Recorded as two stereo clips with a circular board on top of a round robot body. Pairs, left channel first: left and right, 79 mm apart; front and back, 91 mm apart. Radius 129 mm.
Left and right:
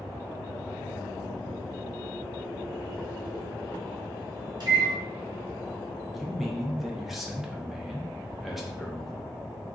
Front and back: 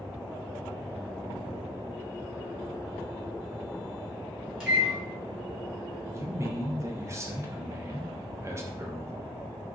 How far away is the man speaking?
About 0.8 m.